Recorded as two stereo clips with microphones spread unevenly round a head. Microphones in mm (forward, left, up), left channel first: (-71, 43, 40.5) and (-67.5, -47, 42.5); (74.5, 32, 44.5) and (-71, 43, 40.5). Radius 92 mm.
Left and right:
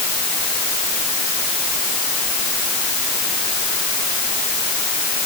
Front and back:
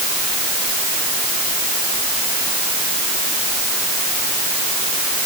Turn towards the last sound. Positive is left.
No sound to turn to.